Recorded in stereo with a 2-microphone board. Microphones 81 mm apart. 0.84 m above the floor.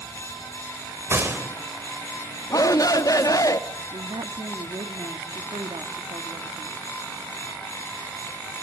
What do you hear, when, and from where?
1.1 s a gunshot: 30° right (ahead or behind), 3 m
2.5 s a shout: 45° left (ahead or behind), 1.3 m
3.9 s a woman speaking: 75° right (ahead or behind), 1.4 m